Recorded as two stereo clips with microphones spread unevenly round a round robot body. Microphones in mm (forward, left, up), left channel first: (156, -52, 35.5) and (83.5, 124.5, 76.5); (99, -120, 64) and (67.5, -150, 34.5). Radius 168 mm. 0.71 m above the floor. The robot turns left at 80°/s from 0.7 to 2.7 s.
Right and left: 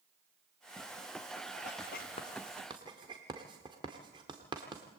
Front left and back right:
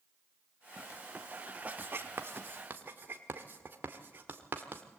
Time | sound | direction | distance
1.6 | writing | 90° right | 1.5 m